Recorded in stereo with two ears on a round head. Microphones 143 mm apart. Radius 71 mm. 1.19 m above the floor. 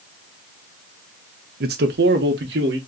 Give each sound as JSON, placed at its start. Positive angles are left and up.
{"t": 1.6, "sound": "a man speaking", "side_deg": -65, "distance_m": 0.9}